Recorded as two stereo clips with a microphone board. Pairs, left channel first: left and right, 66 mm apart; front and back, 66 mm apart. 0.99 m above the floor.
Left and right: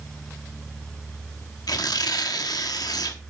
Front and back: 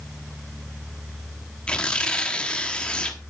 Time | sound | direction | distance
1.7 | tearing paper | 75° left | 1.1 m